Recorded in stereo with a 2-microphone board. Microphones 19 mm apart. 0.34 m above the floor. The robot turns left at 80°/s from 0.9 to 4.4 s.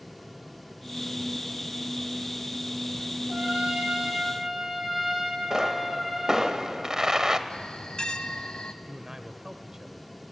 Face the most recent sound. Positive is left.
turn(degrees=-30)  # may be behind; listen again after turning